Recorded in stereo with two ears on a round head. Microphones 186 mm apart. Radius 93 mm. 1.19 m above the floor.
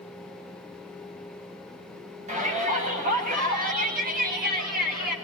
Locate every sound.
2.3 s a shout: 35° right (ahead or behind), 9 m; by 5.2 s 45° right (ahead or behind), 10 m